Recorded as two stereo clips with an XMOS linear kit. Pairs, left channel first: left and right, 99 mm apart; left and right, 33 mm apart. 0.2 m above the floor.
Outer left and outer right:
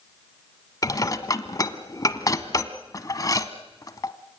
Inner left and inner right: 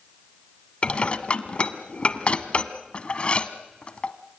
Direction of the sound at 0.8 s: 40° left (ahead or behind).